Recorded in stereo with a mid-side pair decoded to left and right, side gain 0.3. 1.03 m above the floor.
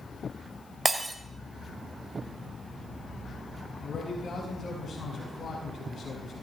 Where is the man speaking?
60° left, 5.5 m.